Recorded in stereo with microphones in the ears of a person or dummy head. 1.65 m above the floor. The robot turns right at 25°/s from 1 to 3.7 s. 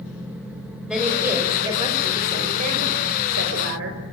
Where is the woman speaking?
Straight behind, 6 m; by 4.0 s 110° right, 6 m.